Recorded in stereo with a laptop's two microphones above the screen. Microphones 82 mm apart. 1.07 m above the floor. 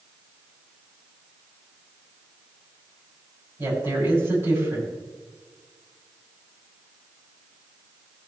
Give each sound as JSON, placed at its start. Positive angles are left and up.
{"t": 3.6, "sound": "a woman speaking", "side_deg": -35, "distance_m": 6.5}